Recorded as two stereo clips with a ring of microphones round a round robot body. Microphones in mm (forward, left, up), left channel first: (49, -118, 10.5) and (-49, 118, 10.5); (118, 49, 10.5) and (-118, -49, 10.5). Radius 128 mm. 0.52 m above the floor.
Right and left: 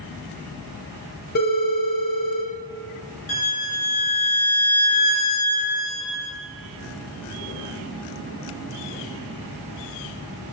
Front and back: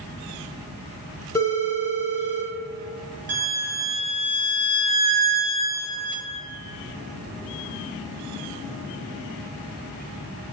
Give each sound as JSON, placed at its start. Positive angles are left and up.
{"t": 1.4, "sound": "a phone ringing", "azimuth_deg": -50, "distance_m": 0.6}
{"t": 3.3, "sound": "a violin", "azimuth_deg": -115, "distance_m": 0.7}